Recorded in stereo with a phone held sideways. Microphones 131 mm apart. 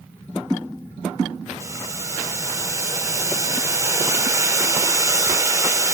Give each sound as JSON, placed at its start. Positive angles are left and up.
{"t": 1.6, "sound": "boiling", "side_deg": -25, "distance_m": 0.6}